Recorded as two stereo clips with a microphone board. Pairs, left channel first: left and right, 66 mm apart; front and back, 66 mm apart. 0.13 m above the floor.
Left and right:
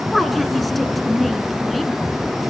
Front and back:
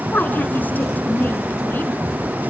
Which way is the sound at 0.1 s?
5° left.